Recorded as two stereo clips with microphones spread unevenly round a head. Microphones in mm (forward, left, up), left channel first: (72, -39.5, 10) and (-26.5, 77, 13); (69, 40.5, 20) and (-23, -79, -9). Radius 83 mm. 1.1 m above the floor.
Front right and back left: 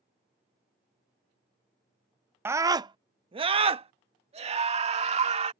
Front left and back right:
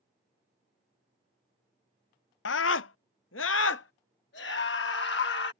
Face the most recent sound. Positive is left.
turn(degrees=85)